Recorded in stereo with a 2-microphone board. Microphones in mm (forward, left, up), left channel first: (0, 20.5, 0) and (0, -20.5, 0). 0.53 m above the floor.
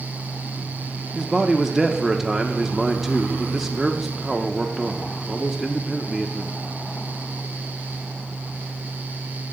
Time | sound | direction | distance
1.1 | a man speaking | 5° right (ahead or behind) | 0.7 m